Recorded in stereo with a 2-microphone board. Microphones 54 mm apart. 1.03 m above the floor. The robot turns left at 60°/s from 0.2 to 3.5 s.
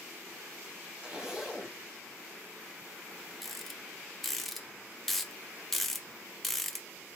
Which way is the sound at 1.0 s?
145° right.